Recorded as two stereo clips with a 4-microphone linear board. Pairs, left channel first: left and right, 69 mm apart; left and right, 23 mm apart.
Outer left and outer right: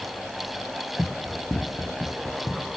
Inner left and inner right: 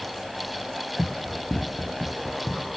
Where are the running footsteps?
25° left (ahead or behind), 1.8 m; by 2.8 s 60° left (ahead or behind), 2.5 m.